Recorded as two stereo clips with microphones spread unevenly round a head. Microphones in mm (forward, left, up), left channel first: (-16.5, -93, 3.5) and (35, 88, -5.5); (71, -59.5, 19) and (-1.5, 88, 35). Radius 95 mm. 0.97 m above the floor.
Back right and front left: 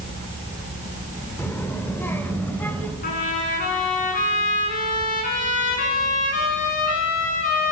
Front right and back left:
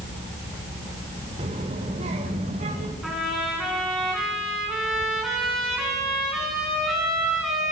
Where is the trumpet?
155° right, 5.5 m.